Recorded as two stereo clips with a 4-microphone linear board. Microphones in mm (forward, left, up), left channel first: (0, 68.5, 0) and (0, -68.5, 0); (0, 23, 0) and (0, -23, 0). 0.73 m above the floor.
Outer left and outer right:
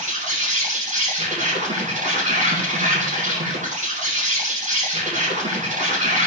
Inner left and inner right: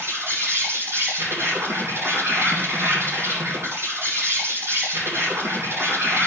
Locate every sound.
0.0 s an insect: 65° right (ahead or behind), 8 m